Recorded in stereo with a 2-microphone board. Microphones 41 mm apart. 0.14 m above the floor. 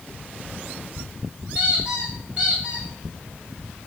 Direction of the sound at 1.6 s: 25° right (ahead or behind).